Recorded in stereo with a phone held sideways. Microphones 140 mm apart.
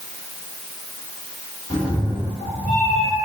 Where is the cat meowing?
25° left (ahead or behind), 1.3 m.